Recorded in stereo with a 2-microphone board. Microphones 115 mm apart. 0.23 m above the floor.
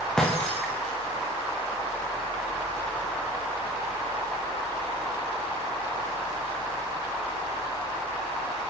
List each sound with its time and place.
0.2 s breaking glass: 5° left (ahead or behind), 8.5 m